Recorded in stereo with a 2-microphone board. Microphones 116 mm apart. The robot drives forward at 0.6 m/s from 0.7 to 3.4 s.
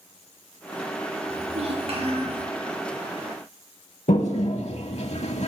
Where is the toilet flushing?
70° left (ahead or behind), 0.7 m.